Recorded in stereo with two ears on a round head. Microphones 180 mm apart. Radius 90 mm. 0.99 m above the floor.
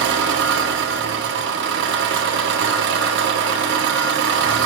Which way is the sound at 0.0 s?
60° right (ahead or behind).